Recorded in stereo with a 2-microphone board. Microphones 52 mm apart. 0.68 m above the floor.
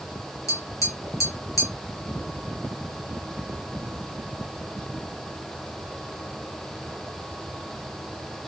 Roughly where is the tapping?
Left.